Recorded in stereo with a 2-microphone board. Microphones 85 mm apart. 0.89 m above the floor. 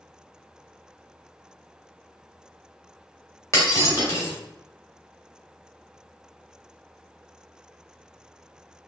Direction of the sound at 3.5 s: 35° left (ahead or behind).